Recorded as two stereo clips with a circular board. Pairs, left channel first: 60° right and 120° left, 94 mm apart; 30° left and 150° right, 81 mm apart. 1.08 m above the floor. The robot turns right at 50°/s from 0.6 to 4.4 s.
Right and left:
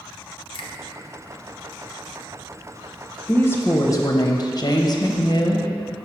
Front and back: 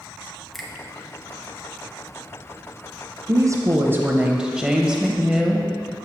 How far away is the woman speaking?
About 0.7 m.